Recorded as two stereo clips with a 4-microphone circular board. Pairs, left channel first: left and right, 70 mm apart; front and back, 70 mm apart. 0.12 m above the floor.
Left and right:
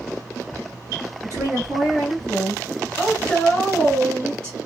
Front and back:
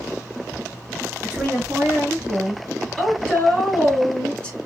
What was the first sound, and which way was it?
A woman speaking, 120° right.